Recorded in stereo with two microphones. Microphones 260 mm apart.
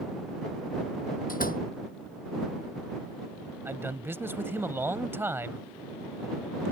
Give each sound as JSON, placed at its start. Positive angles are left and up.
{"t": 1.3, "sound": "a door slam", "side_deg": 35}
{"t": 3.6, "sound": "a man speaking", "side_deg": -10}